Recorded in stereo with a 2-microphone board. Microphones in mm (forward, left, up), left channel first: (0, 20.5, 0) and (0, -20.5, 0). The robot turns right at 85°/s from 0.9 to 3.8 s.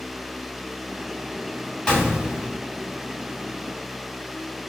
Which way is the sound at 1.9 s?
160° left.